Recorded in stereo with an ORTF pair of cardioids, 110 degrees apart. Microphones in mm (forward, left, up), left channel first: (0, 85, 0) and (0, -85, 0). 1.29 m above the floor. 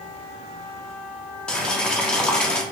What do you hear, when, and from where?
1.5 s boiling: 5° left, 0.5 m